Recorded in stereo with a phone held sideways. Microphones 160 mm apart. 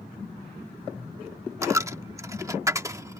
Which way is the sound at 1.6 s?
20° right (ahead or behind).